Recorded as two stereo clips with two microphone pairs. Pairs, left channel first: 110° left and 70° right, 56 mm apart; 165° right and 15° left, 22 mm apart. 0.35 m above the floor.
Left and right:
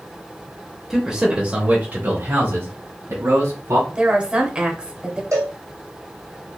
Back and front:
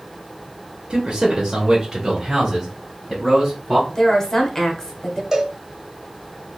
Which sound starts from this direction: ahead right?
A cowbell, at 5.3 s.